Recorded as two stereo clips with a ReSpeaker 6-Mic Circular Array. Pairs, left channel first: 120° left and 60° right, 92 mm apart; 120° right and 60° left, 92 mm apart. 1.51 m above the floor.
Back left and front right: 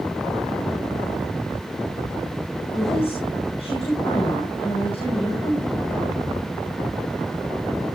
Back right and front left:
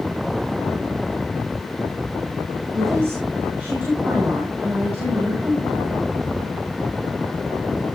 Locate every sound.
2.7 s a woman speaking: 125° left, 7.5 m